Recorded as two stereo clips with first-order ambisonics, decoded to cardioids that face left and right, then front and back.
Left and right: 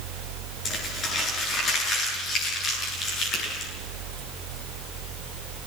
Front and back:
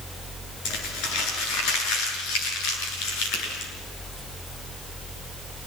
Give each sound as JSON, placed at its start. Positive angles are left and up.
{"t": 0.7, "sound": "crumpling", "azimuth_deg": 25, "distance_m": 8.0}
{"t": 3.3, "sound": "a finger snap", "azimuth_deg": 35, "distance_m": 7.5}